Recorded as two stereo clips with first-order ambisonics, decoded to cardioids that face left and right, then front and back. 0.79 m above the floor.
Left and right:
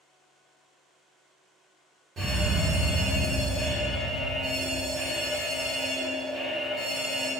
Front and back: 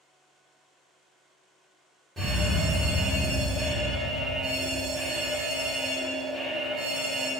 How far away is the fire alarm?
About 1.3 m.